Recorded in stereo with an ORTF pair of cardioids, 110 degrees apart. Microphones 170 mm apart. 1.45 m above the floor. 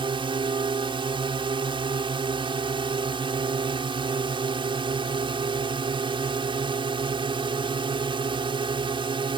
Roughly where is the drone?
Ahead right.